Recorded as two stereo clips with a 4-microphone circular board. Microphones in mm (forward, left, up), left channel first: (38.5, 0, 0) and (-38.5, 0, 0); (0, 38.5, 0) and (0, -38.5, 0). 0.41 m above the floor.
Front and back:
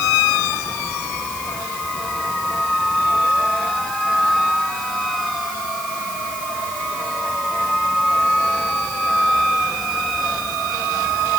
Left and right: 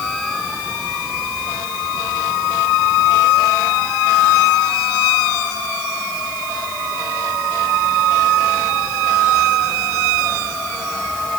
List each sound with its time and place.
Only background noise.